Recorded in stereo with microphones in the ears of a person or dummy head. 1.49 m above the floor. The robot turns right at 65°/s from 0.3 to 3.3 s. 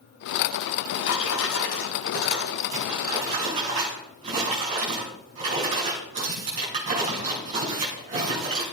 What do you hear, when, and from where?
0.7 s a drawer: 40° left, 4.5 m; by 8.6 s 145° right, 4.5 m